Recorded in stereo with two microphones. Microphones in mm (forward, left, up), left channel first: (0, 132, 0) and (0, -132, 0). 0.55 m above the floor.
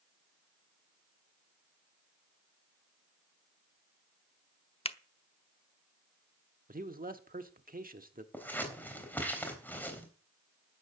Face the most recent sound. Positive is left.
turn(degrees=5)  # may be behind; listen again after turning